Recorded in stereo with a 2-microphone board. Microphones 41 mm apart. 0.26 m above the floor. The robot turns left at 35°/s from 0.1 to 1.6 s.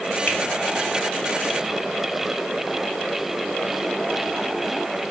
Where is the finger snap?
40° left (ahead or behind), 1.5 m.